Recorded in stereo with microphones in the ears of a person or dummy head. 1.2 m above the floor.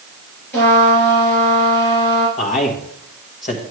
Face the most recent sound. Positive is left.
turn(degrees=40)  # may be behind; listen again after turning